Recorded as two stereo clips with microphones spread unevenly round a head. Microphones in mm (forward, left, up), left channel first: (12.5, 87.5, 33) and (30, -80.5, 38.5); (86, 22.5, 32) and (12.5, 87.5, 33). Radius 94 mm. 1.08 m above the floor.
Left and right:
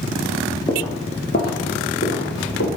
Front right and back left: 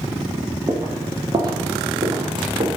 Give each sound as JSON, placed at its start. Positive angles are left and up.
{"t": 0.7, "sound": "footsteps", "azimuth_deg": 160, "distance_m": 1.1}